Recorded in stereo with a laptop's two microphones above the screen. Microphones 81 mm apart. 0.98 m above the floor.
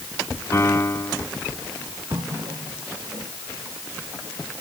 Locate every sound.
0.5 s a piano: 35° left (ahead or behind)
2.1 s a running tap: 75° right (ahead or behind)